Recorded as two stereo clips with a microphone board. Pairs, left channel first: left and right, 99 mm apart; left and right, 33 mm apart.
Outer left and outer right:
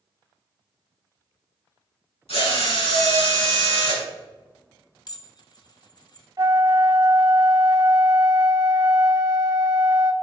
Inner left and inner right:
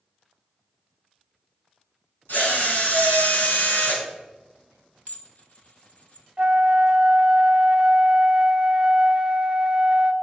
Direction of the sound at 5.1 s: 45° left (ahead or behind).